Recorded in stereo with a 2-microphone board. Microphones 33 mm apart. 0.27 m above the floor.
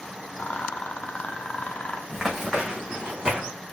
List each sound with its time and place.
0.4 s a rattle: 45° left (ahead or behind), 0.9 m
2.1 s running footsteps: 10° right (ahead or behind), 1.2 m; by 3.5 s 25° right (ahead or behind), 1.8 m